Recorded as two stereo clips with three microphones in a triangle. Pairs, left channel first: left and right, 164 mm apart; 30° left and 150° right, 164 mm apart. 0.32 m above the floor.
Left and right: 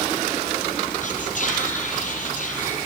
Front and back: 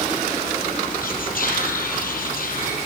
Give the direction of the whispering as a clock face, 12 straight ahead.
10 o'clock.